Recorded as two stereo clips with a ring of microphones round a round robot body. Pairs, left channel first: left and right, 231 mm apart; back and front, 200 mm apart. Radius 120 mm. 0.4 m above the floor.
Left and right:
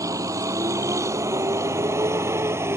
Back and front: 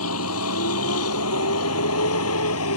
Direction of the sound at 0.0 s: 165° right.